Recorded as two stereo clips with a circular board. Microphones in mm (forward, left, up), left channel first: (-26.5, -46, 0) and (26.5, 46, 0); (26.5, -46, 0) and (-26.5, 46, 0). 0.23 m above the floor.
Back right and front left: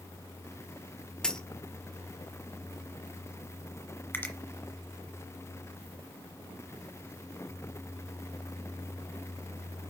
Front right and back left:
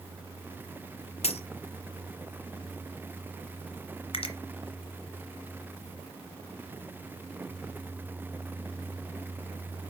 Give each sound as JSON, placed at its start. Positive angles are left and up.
{"t": 1.2, "sound": "a dropped coin", "azimuth_deg": -35, "distance_m": 0.8}
{"t": 4.1, "sound": "a finger snap", "azimuth_deg": -50, "distance_m": 1.7}